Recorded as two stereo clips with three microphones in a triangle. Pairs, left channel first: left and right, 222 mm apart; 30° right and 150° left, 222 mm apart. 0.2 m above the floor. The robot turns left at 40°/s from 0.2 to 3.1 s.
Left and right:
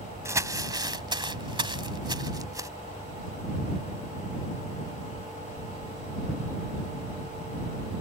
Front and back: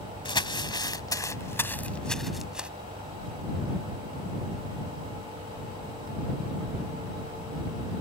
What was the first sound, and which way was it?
Crumpling, 35° right.